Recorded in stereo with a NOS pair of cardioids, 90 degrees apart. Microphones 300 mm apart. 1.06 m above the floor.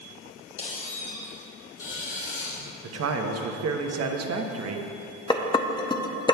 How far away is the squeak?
About 3 m.